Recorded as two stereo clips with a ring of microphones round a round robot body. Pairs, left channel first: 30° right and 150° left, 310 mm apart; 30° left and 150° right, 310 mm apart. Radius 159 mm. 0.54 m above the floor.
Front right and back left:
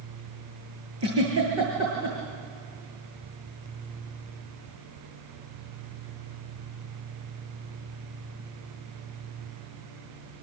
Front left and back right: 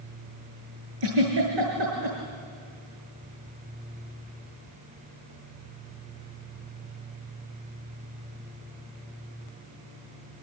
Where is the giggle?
160° right, 8 m.